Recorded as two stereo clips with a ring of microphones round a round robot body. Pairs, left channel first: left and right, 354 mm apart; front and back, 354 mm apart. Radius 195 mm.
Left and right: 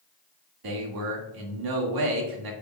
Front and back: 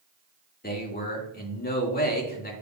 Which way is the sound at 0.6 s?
65° right.